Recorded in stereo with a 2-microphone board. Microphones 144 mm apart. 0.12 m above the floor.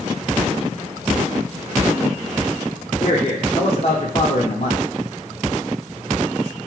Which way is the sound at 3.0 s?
45° left (ahead or behind).